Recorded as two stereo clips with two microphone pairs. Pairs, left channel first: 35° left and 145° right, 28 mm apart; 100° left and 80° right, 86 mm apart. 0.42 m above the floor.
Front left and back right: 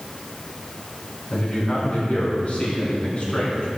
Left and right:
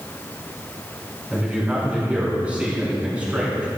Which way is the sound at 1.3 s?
5° right.